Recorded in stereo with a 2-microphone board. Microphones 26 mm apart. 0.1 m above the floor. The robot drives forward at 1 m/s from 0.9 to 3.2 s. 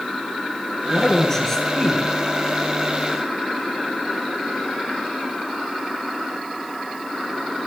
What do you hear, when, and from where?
0.9 s a man speaking: 15° left (ahead or behind), 1.2 m; by 2.0 s 10° left (ahead or behind), 1.8 m